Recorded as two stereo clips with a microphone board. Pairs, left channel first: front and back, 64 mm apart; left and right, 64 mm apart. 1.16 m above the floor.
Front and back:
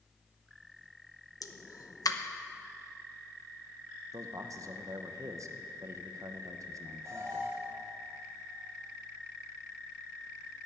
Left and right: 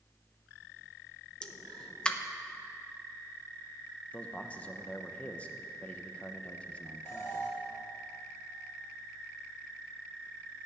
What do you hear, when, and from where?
1.4 s a pop: 15° left, 0.9 m
4.1 s a man speaking: 155° left, 1.0 m
7.0 s an alarm: 140° left, 4 m